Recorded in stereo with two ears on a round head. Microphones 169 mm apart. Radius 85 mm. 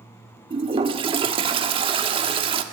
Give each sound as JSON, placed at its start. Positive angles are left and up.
{"t": 0.5, "sound": "a toilet flushing", "side_deg": -30, "distance_m": 1.4}